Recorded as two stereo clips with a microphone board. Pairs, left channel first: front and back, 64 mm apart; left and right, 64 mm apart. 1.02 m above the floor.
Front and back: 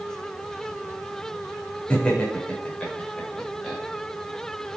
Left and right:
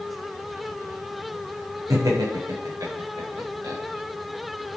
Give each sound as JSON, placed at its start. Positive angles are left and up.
{"t": 1.9, "sound": "laughter", "azimuth_deg": -70, "distance_m": 4.5}